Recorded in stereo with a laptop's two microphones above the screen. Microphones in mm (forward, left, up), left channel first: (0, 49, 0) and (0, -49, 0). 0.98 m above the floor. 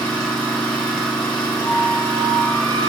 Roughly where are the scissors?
No scissors in this recording.